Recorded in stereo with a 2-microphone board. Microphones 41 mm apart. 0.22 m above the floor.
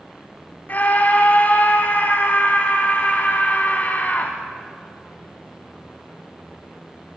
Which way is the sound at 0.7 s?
45° left (ahead or behind).